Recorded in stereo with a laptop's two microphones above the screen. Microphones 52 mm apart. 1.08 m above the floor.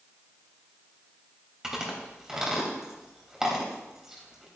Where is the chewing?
10° right (ahead or behind), 3 m.